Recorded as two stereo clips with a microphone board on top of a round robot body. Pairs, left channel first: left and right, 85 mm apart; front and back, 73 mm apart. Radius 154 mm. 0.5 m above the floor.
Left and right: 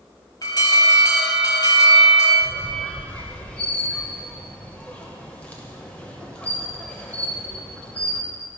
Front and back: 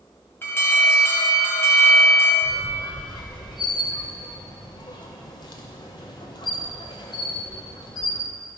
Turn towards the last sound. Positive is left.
turn(degrees=15)